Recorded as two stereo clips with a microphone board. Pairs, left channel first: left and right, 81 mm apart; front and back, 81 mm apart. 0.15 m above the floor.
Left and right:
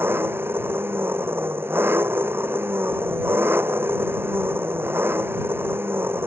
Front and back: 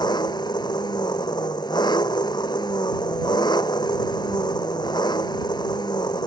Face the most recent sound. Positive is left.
turn(degrees=-30)